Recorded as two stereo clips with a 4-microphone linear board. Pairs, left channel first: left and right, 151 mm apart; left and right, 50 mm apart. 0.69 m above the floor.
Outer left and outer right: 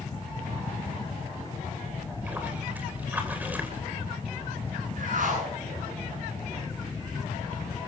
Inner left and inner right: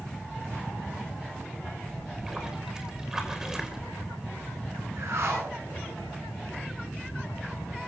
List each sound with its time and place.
2.0 s a splash: 10° right (ahead or behind), 3 m
5.0 s a whoosh: 65° right (ahead or behind), 10 m